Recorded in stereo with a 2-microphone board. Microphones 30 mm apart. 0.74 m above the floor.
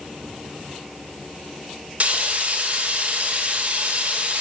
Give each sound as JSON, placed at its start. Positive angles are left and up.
{"t": 2.0, "sound": "frying", "side_deg": -50, "distance_m": 2.0}